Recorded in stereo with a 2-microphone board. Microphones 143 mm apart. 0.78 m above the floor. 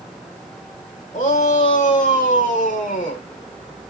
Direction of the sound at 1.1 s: 60° left (ahead or behind).